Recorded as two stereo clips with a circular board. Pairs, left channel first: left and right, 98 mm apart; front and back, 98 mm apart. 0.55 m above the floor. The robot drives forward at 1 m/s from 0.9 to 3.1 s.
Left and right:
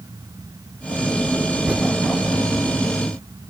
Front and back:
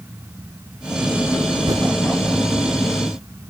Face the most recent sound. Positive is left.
turn(degrees=-175)